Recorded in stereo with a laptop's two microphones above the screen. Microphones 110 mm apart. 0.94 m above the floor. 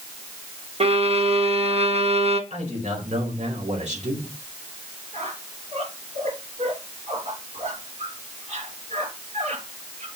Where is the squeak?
75° right (ahead or behind), 3.5 m.